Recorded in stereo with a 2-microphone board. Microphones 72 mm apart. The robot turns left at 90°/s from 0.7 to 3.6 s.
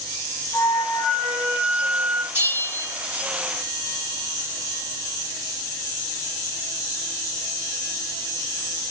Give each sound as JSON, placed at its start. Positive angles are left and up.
{"t": 0.5, "sound": "a flute", "azimuth_deg": 60, "distance_m": 1.1}
{"t": 2.3, "sound": "a bell", "azimuth_deg": -35, "distance_m": 3.0}